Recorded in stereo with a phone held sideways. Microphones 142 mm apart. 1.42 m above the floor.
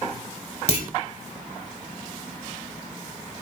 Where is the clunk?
45° left (ahead or behind), 3 m.